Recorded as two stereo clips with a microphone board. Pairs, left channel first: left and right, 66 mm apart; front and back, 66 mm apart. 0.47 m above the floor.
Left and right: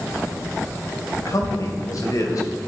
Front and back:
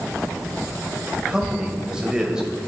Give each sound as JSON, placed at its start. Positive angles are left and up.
{"t": 1.2, "sound": "a man speaking", "azimuth_deg": 105, "distance_m": 2.0}